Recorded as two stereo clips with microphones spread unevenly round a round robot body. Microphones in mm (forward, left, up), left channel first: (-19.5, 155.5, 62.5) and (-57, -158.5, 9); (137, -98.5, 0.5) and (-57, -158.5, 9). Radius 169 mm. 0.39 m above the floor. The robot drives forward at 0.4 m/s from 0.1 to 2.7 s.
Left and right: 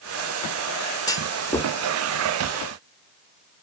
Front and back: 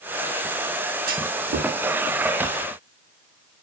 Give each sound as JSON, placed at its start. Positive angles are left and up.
{"t": 1.1, "sound": "a clunk", "azimuth_deg": 170, "distance_m": 1.1}